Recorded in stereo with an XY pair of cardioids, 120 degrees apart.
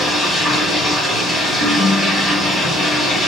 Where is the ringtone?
45° left, 1.3 m.